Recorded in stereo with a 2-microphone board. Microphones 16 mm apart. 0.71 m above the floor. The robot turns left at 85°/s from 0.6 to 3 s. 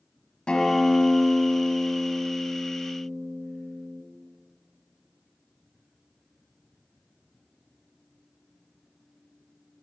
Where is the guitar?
115° left, 2.5 m; by 4.0 s 90° right, 2.5 m.